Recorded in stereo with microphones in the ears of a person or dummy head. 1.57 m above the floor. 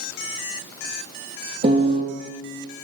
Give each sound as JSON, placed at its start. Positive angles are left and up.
{"t": 1.6, "sound": "a piano", "side_deg": -35, "distance_m": 1.6}